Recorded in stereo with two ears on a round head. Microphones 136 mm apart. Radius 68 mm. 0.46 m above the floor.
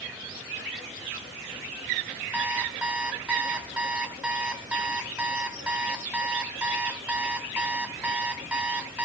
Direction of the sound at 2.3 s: 5° right (ahead or behind).